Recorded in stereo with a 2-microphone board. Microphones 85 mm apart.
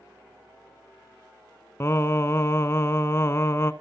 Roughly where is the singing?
Left.